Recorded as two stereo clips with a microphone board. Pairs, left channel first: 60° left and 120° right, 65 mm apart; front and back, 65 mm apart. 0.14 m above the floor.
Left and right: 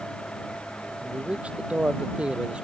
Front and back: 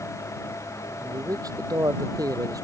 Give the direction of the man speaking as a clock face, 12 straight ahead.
6 o'clock.